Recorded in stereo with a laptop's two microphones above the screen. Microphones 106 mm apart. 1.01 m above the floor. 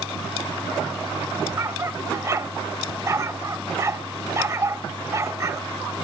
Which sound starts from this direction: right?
A dog barking, at 1.6 s.